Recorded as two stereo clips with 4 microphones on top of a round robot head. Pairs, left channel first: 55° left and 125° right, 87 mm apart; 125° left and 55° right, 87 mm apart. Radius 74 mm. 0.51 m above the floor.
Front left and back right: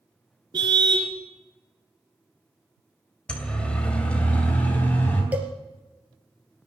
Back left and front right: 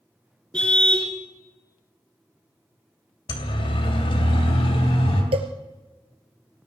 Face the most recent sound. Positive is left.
turn(degrees=-50)